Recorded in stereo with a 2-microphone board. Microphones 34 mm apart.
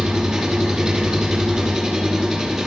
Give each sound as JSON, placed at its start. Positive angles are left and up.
{"t": 0.0, "sound": "an engine running", "side_deg": -15, "distance_m": 2.0}